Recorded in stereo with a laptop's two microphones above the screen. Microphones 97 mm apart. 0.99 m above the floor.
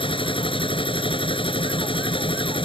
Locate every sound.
0.0 s a machine running: 65° left (ahead or behind)